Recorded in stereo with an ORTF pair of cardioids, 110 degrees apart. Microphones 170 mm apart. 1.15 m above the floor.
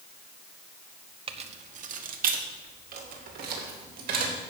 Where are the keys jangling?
35° right, 0.9 m; by 4.3 s 70° right, 3 m.